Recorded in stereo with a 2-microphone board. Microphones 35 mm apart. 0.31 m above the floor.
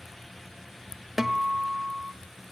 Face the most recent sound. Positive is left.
turn(degrees=-10)  # may be behind; listen again after turning